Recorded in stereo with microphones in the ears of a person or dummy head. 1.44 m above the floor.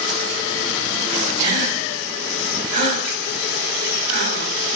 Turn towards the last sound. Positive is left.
turn(degrees=50)  # may be behind; listen again after turning